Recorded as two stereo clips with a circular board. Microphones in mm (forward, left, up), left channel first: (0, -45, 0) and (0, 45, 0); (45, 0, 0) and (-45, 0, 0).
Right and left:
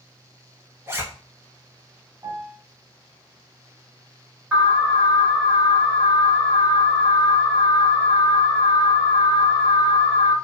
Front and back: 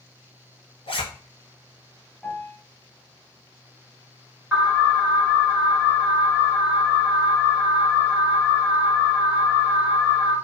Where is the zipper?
25° left, 0.7 m.